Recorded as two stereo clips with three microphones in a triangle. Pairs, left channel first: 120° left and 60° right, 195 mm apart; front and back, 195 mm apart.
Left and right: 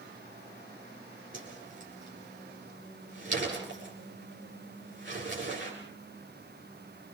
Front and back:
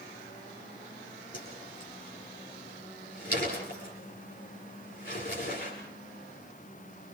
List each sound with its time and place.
1.3 s a whoosh: 45° right, 9 m